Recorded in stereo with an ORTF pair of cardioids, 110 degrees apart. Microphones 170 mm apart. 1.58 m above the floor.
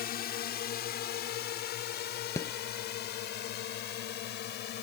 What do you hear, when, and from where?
0.0 s a drone: 65° left; by 4.8 s 75° left
2.4 s a rattle: 20° left